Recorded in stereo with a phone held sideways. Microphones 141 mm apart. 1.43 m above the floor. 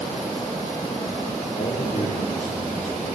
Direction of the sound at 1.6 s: 75° left (ahead or behind).